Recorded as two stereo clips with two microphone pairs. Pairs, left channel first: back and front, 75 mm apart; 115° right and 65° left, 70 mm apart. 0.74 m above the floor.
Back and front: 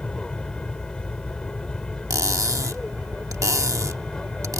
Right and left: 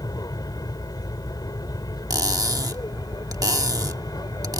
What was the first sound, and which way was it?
An aircraft, 105° right.